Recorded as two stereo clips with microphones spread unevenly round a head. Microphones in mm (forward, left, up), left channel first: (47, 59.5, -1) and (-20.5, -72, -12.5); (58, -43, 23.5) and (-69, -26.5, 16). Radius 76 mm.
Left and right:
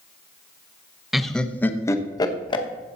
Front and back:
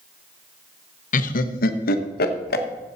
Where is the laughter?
30° right, 1.0 m; by 2.6 s 5° left, 1.4 m.